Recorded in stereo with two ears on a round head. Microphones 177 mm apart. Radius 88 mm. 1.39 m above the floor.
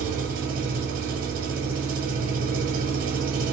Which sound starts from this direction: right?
An engine running, at 0.0 s.